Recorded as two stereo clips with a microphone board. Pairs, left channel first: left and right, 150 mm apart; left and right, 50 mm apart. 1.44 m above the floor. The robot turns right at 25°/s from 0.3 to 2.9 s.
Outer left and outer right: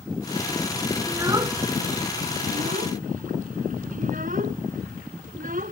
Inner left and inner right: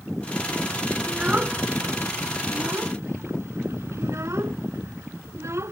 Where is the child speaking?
15° right (ahead or behind); by 5.7 s 60° right (ahead or behind).